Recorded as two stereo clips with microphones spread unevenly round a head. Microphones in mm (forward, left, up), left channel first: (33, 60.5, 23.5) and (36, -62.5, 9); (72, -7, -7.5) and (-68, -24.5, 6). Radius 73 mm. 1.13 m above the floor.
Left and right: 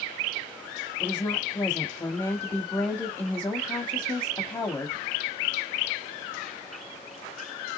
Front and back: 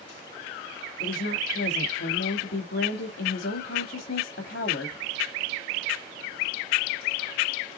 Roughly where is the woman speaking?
Ahead.